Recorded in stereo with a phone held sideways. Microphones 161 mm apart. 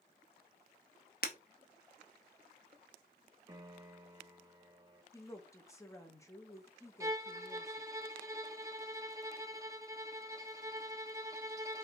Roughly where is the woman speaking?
Centre.